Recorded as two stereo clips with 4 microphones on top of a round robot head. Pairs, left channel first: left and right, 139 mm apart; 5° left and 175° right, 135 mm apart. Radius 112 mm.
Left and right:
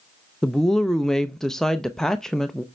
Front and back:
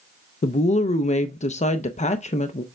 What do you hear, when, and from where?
0.4 s a woman speaking: 5° left, 0.5 m